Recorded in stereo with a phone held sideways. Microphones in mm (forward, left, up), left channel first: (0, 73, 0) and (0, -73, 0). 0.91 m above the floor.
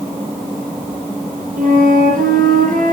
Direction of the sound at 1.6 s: 75° right (ahead or behind).